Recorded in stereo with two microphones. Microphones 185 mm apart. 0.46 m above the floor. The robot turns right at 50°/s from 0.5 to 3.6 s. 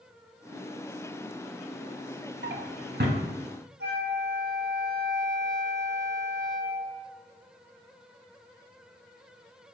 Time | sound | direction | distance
2.4 | a drawer | 75° right (ahead or behind) | 0.6 m
3.8 | a flute | 65° right (ahead or behind) | 0.6 m